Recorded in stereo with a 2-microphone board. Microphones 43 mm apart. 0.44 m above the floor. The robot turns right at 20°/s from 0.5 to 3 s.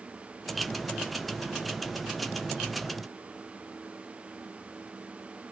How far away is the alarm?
I don't hear an alarm.